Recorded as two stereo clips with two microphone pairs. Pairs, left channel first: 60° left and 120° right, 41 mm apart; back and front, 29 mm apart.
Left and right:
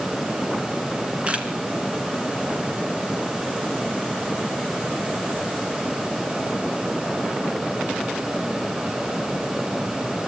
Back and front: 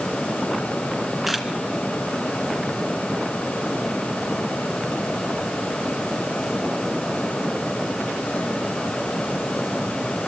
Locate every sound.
1.3 s a camera shutter: 80° right, 2 m